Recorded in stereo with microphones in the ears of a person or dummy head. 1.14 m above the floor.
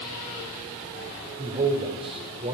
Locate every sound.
1.4 s a man speaking: 30° right (ahead or behind), 5 m